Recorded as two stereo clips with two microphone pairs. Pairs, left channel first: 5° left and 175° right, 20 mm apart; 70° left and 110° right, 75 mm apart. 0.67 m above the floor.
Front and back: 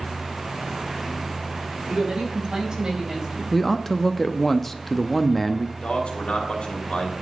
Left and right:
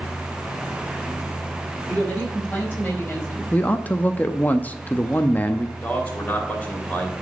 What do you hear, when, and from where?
1.9 s a woman speaking: 150° left, 5 m; by 3.4 s 130° left, 4 m
3.5 s a man speaking: 80° left, 0.5 m
5.8 s a man speaking: 5° left, 2.5 m